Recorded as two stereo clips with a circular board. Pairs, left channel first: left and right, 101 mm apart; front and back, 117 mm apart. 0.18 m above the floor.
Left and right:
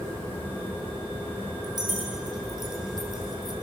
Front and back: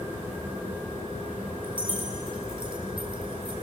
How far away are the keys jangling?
About 5 m.